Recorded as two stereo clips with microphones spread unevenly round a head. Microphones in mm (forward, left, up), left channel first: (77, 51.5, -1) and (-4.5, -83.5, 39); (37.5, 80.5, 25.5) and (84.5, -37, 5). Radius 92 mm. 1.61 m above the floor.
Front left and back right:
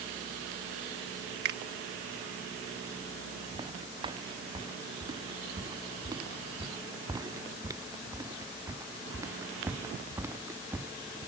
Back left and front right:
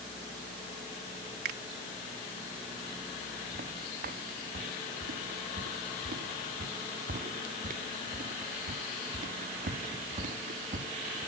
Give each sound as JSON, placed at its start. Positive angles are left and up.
{"t": 1.4, "sound": "a finger snap", "azimuth_deg": -100}
{"t": 3.5, "sound": "footsteps", "azimuth_deg": -60}